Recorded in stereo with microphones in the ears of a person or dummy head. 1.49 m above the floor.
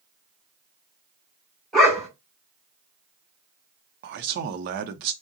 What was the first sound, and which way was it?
A dog barking, centre (ahead or behind).